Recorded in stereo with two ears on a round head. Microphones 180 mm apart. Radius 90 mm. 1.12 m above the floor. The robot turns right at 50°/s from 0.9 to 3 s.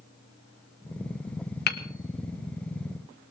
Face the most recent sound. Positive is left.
turn(degrees=-10)  # may be behind; listen again after turning